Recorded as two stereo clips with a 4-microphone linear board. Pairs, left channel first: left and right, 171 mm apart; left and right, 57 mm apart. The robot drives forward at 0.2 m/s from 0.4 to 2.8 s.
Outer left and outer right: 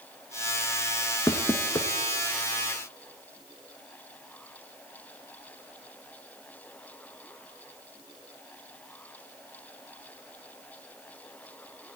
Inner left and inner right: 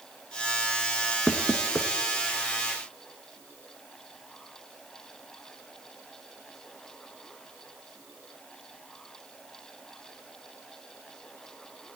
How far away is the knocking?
About 0.8 m.